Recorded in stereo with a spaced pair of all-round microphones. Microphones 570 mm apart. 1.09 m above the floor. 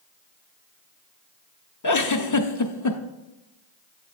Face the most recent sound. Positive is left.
turn(degrees=35)  # may be behind; listen again after turning